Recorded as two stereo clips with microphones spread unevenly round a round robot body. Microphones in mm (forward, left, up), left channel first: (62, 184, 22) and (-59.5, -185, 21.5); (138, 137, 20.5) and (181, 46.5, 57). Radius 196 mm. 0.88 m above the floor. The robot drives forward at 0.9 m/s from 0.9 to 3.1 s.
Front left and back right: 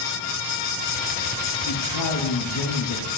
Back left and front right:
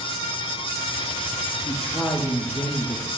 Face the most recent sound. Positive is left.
turn(degrees=65)